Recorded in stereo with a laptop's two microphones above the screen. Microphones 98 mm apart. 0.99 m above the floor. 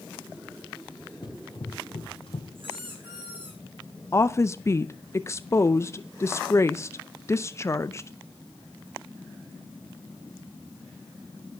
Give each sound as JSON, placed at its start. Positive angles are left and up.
{"t": 1.2, "sound": "running footsteps", "side_deg": 50, "distance_m": 1.8}
{"t": 2.5, "sound": "a squeak", "side_deg": -60, "distance_m": 5.0}
{"t": 4.1, "sound": "a woman speaking", "side_deg": 30, "distance_m": 0.5}